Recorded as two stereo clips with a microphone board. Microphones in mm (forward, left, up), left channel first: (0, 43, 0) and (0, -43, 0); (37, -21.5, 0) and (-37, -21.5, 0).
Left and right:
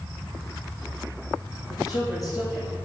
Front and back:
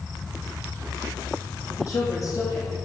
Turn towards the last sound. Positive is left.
turn(degrees=50)